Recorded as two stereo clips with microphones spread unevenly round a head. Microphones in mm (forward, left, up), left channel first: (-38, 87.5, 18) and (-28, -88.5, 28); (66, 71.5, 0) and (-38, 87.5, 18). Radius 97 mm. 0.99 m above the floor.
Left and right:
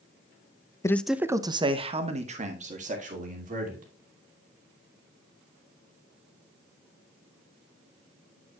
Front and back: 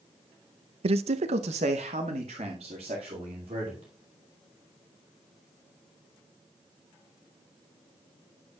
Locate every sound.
0.8 s a man speaking: 160° left, 0.5 m; by 3.9 s 125° right, 2.5 m